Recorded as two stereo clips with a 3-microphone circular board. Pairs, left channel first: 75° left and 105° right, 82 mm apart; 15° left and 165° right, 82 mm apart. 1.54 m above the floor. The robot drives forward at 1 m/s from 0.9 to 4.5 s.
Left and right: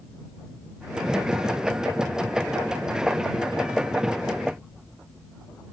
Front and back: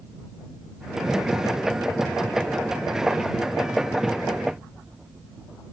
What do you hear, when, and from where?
Only background noise.